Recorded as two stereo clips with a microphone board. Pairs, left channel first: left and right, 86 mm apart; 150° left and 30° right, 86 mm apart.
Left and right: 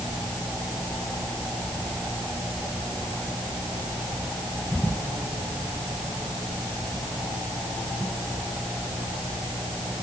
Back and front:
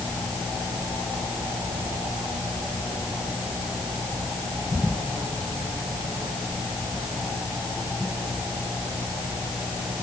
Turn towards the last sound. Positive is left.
No sound to turn to.